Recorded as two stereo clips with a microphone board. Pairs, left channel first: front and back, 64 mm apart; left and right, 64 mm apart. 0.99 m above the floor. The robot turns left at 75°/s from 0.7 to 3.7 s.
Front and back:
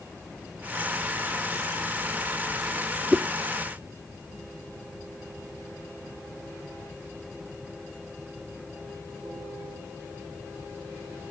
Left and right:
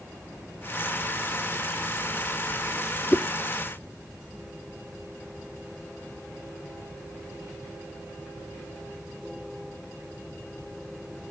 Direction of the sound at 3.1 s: 110° left.